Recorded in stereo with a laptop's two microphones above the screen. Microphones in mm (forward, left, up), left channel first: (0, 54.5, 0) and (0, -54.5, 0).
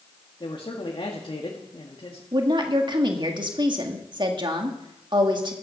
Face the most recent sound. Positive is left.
turn(degrees=-45)  # may be behind; listen again after turning